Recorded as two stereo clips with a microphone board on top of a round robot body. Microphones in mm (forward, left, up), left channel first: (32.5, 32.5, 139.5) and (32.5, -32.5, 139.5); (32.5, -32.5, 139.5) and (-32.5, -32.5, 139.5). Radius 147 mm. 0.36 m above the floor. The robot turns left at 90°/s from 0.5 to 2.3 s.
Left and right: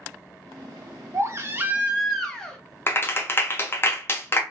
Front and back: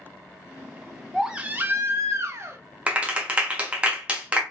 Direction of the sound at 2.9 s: 120° left.